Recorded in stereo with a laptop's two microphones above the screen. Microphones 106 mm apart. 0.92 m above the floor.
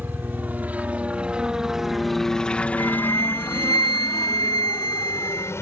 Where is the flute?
40° left (ahead or behind).